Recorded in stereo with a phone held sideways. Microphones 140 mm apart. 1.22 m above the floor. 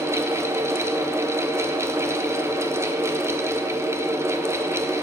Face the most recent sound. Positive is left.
turn(degrees=-20)  # may be behind; listen again after turning